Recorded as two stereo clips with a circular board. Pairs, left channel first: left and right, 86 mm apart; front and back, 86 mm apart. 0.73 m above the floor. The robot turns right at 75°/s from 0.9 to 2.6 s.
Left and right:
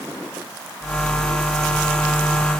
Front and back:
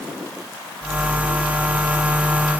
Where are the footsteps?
No footsteps in this recording.